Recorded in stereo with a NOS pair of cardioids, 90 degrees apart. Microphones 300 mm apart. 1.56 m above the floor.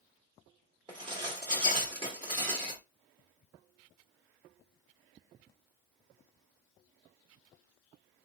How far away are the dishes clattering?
About 1.6 m.